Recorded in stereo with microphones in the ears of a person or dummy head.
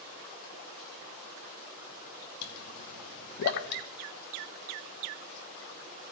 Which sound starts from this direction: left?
A pop, at 2.4 s.